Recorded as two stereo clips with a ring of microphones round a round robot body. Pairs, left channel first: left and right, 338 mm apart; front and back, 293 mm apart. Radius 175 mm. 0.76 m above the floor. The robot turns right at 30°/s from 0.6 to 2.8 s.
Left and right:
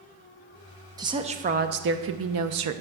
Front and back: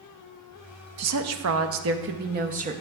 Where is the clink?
No clink in this recording.